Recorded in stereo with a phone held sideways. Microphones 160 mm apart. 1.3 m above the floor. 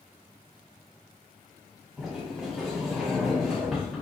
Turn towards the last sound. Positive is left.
turn(degrees=-5)  # may be behind; listen again after turning